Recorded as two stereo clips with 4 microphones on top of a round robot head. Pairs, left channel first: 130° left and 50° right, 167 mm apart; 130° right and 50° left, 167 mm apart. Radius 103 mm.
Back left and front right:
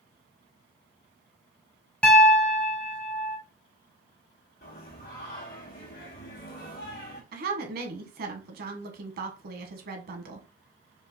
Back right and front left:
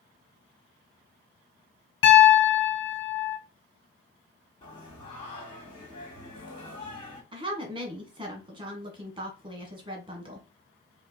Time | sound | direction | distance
2.0 | a piano | 145° right | 1.1 m
4.6 | singing | 170° left | 1.8 m
7.3 | a woman speaking | 15° right | 1.4 m